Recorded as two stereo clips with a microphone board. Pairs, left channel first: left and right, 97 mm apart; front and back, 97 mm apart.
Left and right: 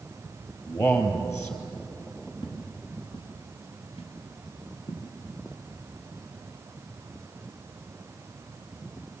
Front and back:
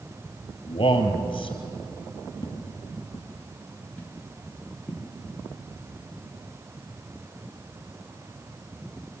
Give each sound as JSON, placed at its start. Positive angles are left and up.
{"t": 0.7, "sound": "a man speaking", "azimuth_deg": 30, "distance_m": 3.5}
{"t": 2.4, "sound": "footsteps", "azimuth_deg": 50, "distance_m": 3.0}